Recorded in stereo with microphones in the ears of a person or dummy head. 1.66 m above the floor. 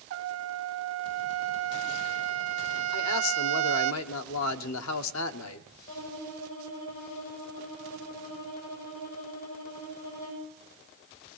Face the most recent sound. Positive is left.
turn(degrees=85)